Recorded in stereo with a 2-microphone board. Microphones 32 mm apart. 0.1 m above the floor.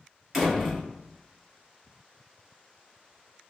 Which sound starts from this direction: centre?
A door slam, at 0.3 s.